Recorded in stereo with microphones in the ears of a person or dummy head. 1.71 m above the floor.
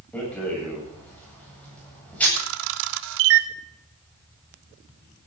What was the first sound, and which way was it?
A rattle, 10° left (ahead or behind).